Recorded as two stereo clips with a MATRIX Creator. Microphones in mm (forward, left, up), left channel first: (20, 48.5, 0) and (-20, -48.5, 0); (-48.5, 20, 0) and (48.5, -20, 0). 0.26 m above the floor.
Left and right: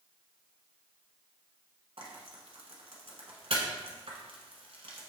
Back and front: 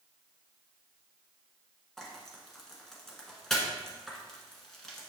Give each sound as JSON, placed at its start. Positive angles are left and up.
{"t": 2.0, "sound": "frying", "azimuth_deg": -115, "distance_m": 1.2}